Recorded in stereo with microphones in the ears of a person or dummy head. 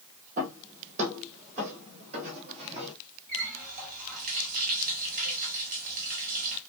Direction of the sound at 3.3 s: 45° right (ahead or behind).